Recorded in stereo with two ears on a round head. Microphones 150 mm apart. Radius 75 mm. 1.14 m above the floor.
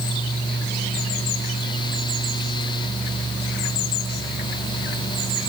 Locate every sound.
Only background noise.